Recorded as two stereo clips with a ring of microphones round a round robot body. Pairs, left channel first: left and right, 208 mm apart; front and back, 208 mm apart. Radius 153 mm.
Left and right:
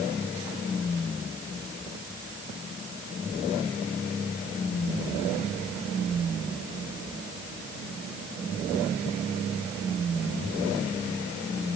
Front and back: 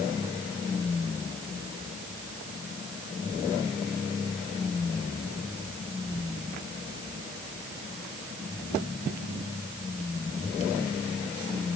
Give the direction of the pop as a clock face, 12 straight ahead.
No pop in this recording.